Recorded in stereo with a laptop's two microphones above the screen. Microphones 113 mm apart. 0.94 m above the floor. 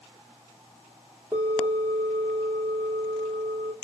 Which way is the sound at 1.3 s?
30° right (ahead or behind).